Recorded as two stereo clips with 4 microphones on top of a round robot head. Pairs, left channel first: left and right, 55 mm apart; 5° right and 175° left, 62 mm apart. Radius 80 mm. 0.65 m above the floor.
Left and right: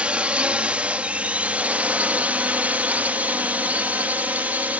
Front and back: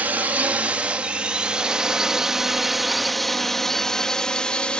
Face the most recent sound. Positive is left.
turn(degrees=-65)